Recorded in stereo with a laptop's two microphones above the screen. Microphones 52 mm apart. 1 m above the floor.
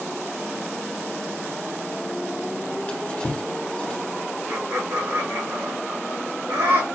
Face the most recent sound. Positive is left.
turn(degrees=-85)